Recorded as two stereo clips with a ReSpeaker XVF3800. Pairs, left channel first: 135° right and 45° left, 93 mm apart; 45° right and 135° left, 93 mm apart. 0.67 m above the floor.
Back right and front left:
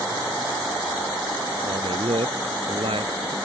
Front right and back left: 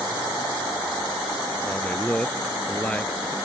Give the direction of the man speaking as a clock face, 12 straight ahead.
11 o'clock.